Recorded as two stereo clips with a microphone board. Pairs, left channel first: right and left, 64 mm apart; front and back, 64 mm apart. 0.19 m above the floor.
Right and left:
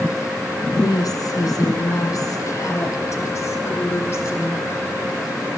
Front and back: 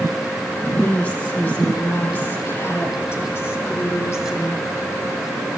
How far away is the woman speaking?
About 5 m.